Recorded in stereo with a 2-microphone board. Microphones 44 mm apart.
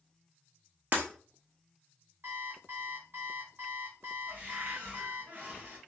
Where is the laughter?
No laughter in this recording.